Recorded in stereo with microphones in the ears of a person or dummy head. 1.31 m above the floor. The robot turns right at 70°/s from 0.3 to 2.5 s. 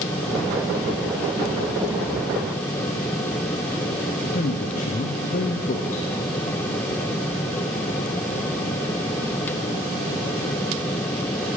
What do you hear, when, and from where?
4.3 s a man speaking: 35° left (ahead or behind), 0.5 m